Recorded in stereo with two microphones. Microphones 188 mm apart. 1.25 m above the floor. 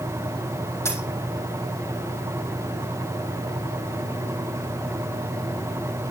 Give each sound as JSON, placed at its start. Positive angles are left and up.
{"t": 0.8, "sound": "a dropped coin", "side_deg": 15, "distance_m": 2.0}